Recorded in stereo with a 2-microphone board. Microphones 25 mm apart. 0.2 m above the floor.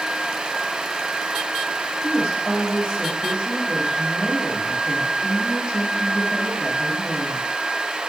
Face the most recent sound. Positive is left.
turn(degrees=-45)  # may be behind; listen again after turning